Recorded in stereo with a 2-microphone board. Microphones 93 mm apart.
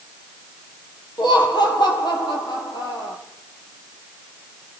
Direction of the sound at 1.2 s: 50° left (ahead or behind).